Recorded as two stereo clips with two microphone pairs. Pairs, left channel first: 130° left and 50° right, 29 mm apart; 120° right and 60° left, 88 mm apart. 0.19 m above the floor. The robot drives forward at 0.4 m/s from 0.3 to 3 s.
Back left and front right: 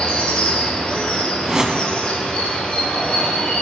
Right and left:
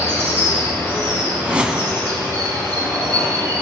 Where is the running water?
175° right, 3 m.